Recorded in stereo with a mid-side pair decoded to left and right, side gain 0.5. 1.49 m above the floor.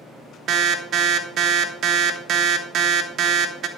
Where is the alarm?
60° right, 1.4 m.